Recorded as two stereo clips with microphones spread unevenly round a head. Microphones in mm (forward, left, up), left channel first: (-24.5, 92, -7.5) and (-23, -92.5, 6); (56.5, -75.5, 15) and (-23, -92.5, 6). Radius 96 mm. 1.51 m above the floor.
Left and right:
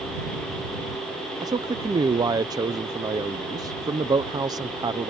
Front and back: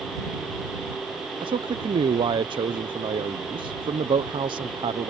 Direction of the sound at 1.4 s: 160° right.